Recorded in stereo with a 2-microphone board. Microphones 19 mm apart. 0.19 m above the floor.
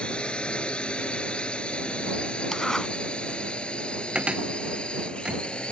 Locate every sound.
0.0 s a drone: 65° left (ahead or behind)
2.5 s a zipper: 25° left (ahead or behind)
4.2 s a cupboard door: 65° right (ahead or behind)